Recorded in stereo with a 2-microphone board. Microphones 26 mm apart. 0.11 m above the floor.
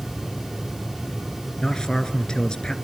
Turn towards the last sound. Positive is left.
turn(degrees=30)  # may be behind; listen again after turning